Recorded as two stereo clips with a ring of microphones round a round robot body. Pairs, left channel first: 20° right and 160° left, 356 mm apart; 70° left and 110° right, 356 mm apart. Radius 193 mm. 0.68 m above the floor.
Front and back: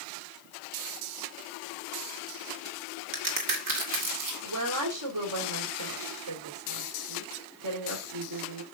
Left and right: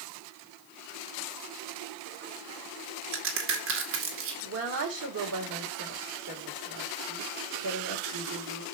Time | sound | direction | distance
3.1 | a crack | 170° right | 2 m
4.4 | a woman speaking | 165° right | 2.5 m